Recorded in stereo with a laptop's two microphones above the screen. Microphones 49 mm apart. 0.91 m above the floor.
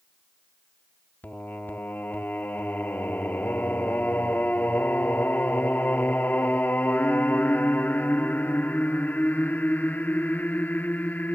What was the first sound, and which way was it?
Singing, 40° left (ahead or behind).